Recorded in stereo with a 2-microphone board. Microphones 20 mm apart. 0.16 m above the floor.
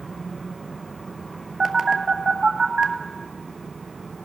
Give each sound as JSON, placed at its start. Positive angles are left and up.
{"t": 1.6, "sound": "a phone buzzing", "side_deg": -15, "distance_m": 1.0}